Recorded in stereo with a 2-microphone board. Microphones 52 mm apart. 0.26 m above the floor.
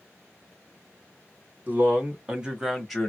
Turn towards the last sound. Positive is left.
turn(degrees=10)  # may be behind; listen again after turning